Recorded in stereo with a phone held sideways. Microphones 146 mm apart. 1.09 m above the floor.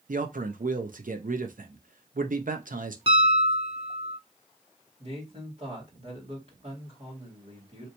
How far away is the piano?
About 0.7 m.